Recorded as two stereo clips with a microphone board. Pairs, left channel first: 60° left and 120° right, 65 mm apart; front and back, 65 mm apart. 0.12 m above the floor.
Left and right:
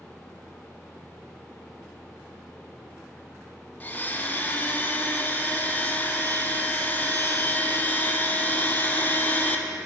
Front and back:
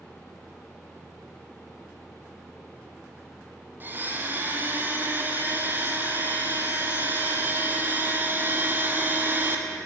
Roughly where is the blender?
Behind left.